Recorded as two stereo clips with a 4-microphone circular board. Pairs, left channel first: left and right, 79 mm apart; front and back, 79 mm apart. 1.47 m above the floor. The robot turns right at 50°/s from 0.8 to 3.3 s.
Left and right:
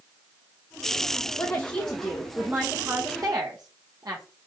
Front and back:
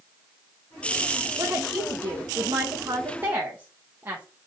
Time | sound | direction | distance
1.4 | a woman speaking | 145° left | 0.7 m